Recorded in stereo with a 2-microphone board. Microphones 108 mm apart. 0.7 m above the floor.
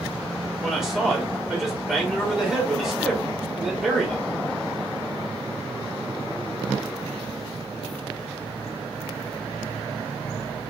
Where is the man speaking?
5° right (ahead or behind), 2 m.